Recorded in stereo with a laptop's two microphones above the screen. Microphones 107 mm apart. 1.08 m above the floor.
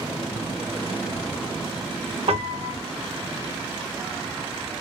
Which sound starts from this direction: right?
A piano, at 2.3 s.